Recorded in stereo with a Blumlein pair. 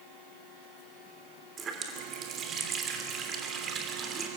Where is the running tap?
25° right, 3 m.